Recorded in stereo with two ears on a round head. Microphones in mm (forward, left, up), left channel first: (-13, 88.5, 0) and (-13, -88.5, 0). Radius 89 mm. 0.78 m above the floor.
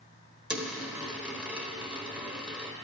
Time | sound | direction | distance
0.5 | a dropped coin | 5° right (ahead or behind) | 1.4 m